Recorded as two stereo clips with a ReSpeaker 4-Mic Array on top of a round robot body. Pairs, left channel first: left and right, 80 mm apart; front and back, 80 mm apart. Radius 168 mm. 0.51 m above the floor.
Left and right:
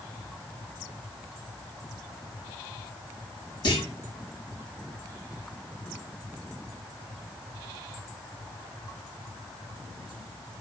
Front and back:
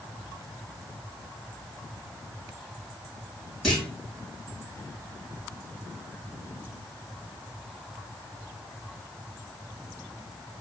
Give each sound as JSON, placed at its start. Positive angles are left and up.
{"t": 3.6, "sound": "a clunk", "azimuth_deg": 90, "distance_m": 3.5}